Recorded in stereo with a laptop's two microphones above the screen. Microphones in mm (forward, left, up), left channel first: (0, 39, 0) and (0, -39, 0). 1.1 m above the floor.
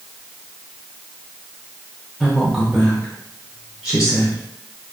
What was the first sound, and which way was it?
A woman speaking, centre (ahead or behind).